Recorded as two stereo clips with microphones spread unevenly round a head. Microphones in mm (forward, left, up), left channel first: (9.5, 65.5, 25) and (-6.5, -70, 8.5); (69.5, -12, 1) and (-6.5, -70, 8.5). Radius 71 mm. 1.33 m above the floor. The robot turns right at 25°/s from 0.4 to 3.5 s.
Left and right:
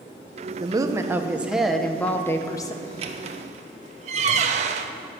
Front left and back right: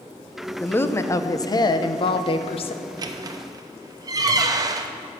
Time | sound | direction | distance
0.6 | a woman speaking | 35° right | 0.8 m
2.8 | a squeak | 140° right | 0.7 m